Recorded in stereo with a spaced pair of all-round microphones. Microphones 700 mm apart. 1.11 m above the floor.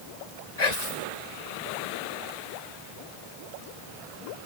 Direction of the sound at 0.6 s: 70° left (ahead or behind).